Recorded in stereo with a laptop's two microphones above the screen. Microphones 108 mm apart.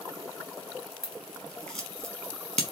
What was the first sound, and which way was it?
Scissors, 5° left (ahead or behind).